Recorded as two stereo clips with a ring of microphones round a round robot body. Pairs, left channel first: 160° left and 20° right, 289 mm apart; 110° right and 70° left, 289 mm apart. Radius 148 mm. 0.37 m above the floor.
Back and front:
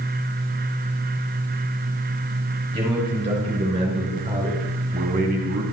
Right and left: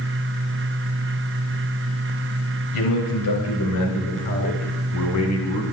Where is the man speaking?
95° right, 6.5 m; by 5.6 s 75° right, 3 m.